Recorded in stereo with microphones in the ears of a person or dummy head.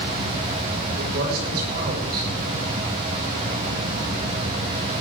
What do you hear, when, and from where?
1.0 s a man speaking: 55° right (ahead or behind), 6 m